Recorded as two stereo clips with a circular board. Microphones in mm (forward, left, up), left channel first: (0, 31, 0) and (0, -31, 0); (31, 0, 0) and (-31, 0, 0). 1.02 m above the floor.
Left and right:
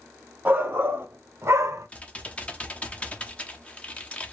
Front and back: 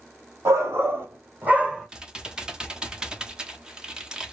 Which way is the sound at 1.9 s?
120° left.